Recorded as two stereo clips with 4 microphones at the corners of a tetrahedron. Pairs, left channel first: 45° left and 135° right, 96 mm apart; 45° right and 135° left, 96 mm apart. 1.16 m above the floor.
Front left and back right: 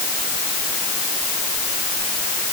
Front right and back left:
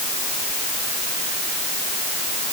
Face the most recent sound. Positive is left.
No sound to turn to.